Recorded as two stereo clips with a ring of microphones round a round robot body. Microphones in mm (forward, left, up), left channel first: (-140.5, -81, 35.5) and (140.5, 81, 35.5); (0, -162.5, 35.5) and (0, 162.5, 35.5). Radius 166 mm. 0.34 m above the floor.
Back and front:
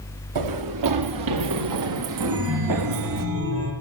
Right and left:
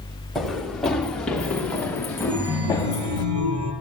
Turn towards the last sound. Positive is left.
turn(degrees=80)